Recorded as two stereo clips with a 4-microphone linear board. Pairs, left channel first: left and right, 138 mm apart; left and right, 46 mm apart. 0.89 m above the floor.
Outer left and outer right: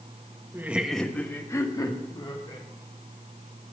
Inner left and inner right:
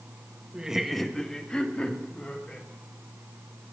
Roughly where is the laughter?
Centre.